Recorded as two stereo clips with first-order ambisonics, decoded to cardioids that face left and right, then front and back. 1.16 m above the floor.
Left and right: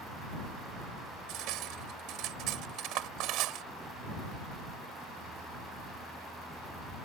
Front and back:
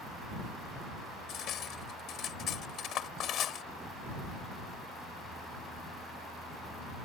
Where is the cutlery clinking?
55° right.